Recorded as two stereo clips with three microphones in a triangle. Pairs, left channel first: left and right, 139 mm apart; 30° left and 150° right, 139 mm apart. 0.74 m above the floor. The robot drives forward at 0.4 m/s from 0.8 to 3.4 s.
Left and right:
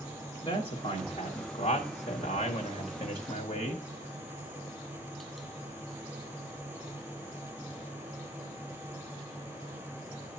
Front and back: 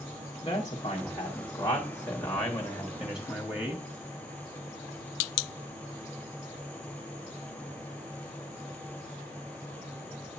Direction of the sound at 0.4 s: 65° left.